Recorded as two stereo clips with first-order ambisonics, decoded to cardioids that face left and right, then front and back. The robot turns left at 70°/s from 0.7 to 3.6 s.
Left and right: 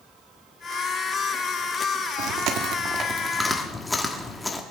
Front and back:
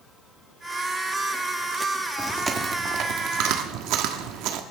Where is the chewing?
90° right, 1.2 m; by 4.6 s 170° left, 1.2 m.